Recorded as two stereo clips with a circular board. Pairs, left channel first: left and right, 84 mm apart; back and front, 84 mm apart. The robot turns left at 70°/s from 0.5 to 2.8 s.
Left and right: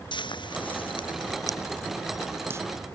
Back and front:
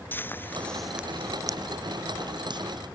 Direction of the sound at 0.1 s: 115° left.